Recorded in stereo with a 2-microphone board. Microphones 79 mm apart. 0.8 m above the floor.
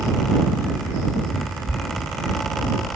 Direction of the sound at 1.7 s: 10° right (ahead or behind).